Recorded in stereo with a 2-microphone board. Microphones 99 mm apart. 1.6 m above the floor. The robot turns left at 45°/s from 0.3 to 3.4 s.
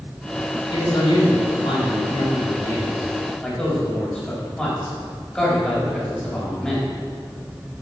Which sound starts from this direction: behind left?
A man speaking, at 0.7 s.